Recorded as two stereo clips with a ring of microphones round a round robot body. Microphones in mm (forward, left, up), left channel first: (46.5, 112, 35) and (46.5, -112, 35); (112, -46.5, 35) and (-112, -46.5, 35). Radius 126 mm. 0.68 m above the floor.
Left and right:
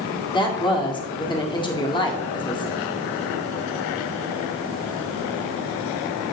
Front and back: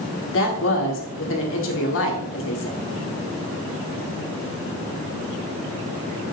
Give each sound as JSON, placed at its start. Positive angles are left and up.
{"t": 0.3, "sound": "a woman speaking", "azimuth_deg": 25, "distance_m": 1.7}